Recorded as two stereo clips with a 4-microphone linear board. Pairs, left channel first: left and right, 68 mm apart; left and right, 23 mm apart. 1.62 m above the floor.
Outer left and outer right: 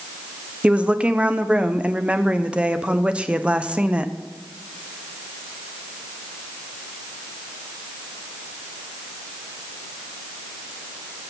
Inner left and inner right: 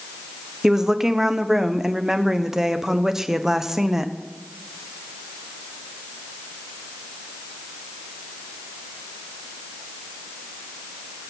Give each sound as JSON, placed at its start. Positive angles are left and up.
{"t": 0.6, "sound": "a woman speaking", "side_deg": -20, "distance_m": 1.0}